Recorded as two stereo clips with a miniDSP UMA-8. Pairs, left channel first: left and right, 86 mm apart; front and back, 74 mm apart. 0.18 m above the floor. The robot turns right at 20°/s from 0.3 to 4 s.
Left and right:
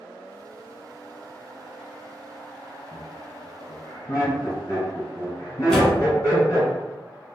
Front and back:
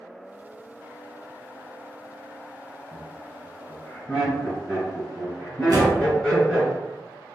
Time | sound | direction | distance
2.9 | laughter | 50° left | 1.8 m
5.7 | a door slam | 175° left | 0.9 m